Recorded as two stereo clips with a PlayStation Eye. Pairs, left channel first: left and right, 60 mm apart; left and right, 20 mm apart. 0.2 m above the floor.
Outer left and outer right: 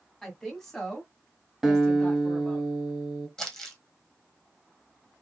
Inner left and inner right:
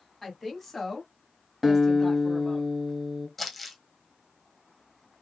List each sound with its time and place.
0.2 s a woman speaking: 5° left (ahead or behind), 1.8 m; by 2.6 s 15° left (ahead or behind), 1.6 m
1.6 s a guitar: 5° right (ahead or behind), 1.4 m
3.4 s crumpling: 10° left (ahead or behind), 1.3 m